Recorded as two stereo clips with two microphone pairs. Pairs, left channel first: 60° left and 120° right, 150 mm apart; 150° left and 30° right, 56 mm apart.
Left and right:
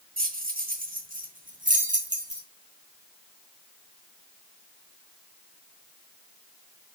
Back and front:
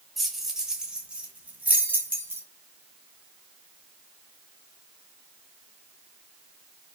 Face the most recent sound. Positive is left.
turn(degrees=-85)